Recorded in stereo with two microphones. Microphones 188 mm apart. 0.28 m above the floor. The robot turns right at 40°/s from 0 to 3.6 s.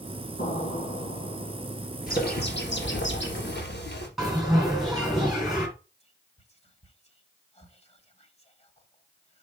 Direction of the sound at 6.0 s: 35° left (ahead or behind).